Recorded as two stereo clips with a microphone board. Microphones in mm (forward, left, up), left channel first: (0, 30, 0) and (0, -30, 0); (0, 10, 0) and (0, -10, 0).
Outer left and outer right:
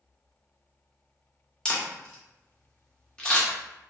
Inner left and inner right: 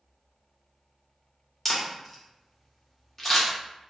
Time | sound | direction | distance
1.6 | a camera shutter | 10° left (ahead or behind) | 0.9 m